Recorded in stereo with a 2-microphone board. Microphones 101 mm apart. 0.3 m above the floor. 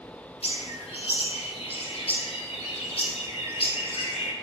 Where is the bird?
80° left, 1.3 m.